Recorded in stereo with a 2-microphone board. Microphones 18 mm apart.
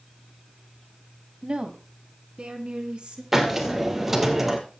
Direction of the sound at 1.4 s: 50° right (ahead or behind).